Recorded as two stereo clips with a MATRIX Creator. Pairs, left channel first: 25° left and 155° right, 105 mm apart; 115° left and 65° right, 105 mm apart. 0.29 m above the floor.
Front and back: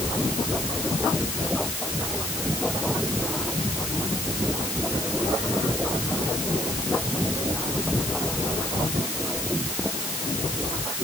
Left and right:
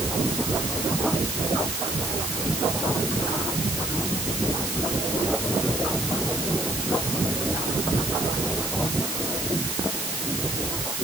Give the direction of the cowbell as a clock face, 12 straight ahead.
I don't hear a cowbell.